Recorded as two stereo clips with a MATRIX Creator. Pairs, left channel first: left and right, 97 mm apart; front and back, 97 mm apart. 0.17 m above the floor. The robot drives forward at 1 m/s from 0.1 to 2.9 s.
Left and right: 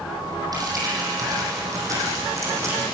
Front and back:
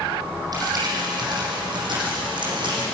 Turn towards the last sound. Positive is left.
turn(degrees=-150)